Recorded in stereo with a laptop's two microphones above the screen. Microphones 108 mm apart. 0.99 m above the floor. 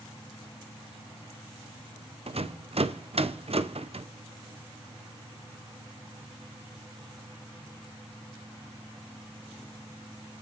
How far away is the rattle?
About 0.5 m.